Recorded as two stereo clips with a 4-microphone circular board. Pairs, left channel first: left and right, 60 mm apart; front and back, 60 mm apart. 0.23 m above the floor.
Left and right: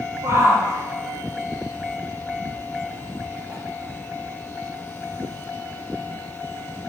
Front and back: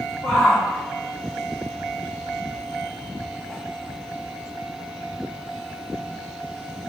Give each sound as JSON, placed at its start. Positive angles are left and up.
{"t": 0.2, "sound": "a shout", "azimuth_deg": -65, "distance_m": 7.5}